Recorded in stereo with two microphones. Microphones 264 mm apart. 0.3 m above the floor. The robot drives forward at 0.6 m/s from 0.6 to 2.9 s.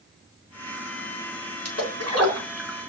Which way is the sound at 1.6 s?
70° right (ahead or behind).